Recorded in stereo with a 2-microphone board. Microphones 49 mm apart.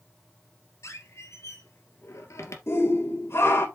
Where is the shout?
60° left (ahead or behind), 2.5 m.